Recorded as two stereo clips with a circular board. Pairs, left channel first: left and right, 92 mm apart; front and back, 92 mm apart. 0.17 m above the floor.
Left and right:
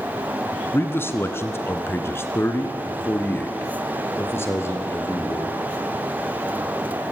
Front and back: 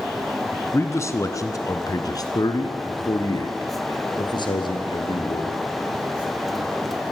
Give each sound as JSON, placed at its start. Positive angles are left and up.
{"t": 0.7, "sound": "a man speaking", "azimuth_deg": 40, "distance_m": 2.0}